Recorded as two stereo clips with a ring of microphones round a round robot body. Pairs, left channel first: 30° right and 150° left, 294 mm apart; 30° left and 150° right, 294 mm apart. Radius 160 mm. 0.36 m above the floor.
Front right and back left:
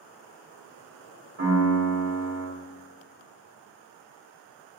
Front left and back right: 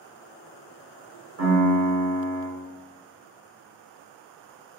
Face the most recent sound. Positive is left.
turn(degrees=180)